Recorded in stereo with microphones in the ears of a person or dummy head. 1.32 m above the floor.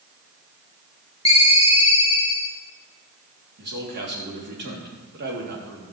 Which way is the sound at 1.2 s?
30° left (ahead or behind).